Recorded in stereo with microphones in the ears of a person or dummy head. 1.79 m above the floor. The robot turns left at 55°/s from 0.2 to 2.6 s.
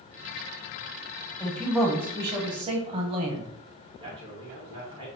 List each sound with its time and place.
1.4 s a man speaking: 15° left, 1.1 m; by 3.5 s 50° right, 1.1 m
4.0 s a man speaking: 35° right (ahead or behind), 2.5 m